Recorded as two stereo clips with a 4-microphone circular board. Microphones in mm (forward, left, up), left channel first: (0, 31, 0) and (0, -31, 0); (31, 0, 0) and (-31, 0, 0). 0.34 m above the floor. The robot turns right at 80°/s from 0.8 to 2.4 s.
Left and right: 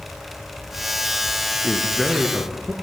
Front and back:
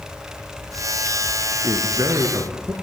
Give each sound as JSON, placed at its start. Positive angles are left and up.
{"t": 1.6, "sound": "a man speaking", "azimuth_deg": 150, "distance_m": 4.0}